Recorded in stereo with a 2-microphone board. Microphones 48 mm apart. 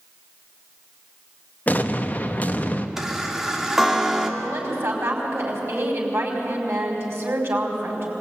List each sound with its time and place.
1.7 s an explosion: 35° left (ahead or behind), 1.3 m
3.0 s a chime: 10° right (ahead or behind), 2.0 m
4.4 s a woman speaking: 60° right (ahead or behind), 5.5 m